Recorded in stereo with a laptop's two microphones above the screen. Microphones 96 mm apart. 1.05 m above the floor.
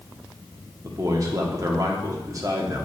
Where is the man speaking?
35° right (ahead or behind), 0.9 m.